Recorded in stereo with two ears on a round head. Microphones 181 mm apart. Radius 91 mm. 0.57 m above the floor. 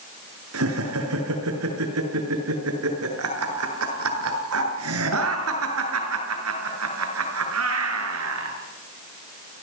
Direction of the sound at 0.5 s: 85° right.